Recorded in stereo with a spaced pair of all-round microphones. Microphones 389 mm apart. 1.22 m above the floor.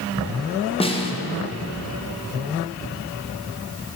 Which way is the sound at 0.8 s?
15° left (ahead or behind).